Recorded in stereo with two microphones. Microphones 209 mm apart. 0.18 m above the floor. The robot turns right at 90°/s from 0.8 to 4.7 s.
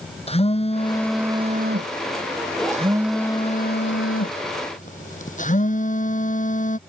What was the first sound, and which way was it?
A phone buzzing, 150° left.